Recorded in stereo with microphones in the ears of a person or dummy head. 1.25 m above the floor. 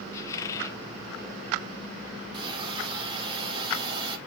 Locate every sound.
0.1 s a squeak: 15° left (ahead or behind), 0.8 m
2.3 s a hiss: 30° right (ahead or behind), 1.7 m